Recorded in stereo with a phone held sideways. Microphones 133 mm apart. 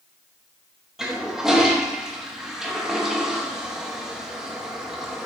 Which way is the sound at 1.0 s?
5° right (ahead or behind).